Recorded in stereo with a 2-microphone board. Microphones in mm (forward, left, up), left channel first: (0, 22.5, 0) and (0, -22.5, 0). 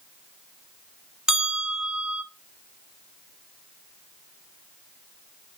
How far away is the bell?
About 1.0 m.